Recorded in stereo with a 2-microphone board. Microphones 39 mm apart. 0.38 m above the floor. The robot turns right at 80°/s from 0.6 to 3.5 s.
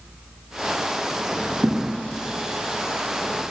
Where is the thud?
60° right (ahead or behind), 7 m; by 1.9 s 40° right (ahead or behind), 7 m.